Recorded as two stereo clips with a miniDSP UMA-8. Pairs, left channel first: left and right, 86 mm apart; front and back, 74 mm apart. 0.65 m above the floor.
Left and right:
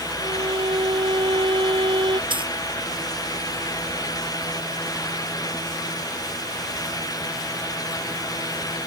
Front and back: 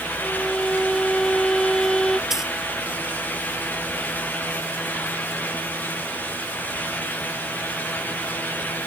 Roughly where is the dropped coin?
Right.